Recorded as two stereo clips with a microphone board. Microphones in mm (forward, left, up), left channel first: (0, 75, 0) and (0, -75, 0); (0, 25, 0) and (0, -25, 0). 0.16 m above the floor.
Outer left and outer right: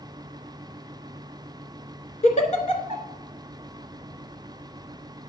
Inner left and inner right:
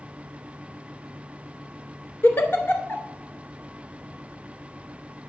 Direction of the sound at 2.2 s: 55° left (ahead or behind).